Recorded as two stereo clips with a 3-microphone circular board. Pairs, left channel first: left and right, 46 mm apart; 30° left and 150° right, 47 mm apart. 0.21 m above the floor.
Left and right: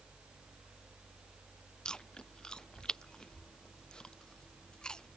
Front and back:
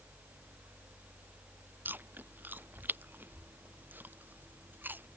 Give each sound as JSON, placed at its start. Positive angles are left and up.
{"t": 1.9, "sound": "chewing", "azimuth_deg": 165}